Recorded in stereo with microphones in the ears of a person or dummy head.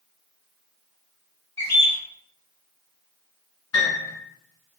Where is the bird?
15° left (ahead or behind), 1.0 m.